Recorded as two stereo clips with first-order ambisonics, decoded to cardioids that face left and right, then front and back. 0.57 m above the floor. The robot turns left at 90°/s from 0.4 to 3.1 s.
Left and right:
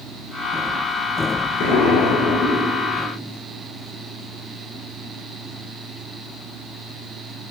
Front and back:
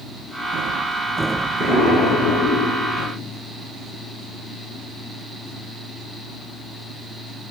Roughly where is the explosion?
Left.